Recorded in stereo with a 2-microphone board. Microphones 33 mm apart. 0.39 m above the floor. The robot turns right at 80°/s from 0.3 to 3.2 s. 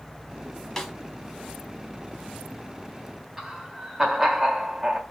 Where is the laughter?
10° right (ahead or behind), 1.3 m.